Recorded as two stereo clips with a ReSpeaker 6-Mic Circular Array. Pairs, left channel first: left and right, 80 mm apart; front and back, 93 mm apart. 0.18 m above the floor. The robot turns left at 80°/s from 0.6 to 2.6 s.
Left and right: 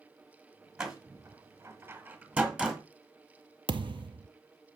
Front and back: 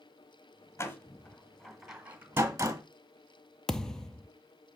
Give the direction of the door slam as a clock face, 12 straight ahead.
12 o'clock.